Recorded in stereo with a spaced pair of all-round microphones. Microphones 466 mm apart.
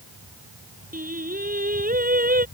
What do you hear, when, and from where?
0.9 s singing: 20° right (ahead or behind)